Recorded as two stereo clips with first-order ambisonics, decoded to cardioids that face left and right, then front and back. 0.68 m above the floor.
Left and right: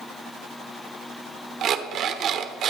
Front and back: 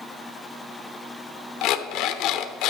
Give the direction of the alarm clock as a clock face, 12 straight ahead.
1 o'clock.